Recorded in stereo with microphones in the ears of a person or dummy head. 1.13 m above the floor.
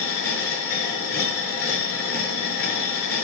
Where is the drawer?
I don't hear a drawer.